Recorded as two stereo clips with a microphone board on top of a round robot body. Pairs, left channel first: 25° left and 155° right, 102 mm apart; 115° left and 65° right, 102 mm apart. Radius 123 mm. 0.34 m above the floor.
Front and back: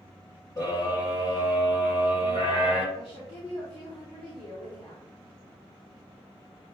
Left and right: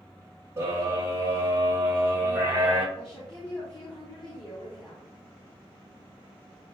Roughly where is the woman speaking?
Ahead left.